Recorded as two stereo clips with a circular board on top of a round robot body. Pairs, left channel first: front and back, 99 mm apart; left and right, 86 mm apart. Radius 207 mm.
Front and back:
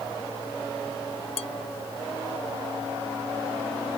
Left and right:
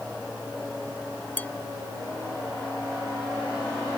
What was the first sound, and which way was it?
Dishes clattering, 20° left.